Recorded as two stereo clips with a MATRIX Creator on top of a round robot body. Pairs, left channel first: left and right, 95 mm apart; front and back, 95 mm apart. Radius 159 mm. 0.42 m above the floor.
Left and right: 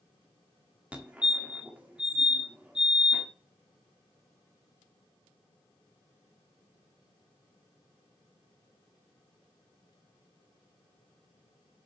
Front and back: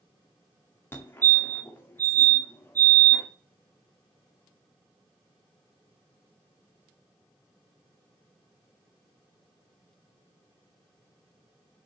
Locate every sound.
0.9 s a fire alarm: 30° right, 1.8 m